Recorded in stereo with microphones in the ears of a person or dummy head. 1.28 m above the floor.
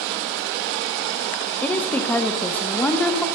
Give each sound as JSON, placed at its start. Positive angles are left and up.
{"t": 1.6, "sound": "a woman speaking", "side_deg": 10, "distance_m": 0.9}